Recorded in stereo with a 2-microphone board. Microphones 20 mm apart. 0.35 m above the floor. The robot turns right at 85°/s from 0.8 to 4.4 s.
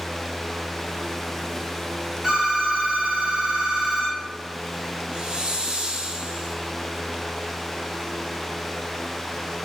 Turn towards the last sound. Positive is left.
turn(degrees=-50)  # may be behind; listen again after turning